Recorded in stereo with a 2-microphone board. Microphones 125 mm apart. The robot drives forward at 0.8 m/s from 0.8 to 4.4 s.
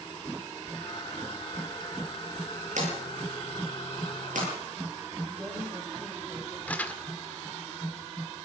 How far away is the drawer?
About 9.5 m.